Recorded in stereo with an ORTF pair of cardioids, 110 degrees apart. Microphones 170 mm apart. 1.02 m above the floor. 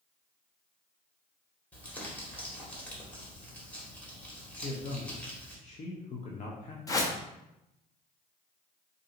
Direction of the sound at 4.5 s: 45° left.